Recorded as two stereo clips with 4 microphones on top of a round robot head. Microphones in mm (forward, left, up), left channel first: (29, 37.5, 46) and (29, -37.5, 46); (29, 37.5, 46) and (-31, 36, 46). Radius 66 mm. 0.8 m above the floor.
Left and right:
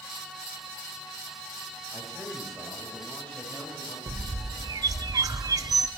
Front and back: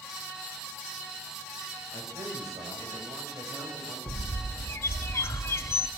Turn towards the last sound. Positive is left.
turn(degrees=-50)